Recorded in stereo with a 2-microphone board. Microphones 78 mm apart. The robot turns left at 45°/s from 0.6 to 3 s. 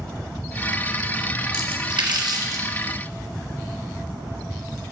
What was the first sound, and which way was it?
A splash, 75° right (ahead or behind).